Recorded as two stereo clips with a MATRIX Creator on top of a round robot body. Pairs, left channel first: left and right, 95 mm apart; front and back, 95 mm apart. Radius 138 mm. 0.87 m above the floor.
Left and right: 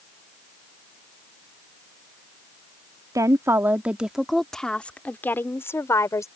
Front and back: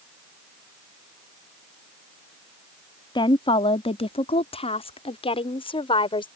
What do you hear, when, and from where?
3.1 s a woman speaking: 35° right; by 6.3 s 30° left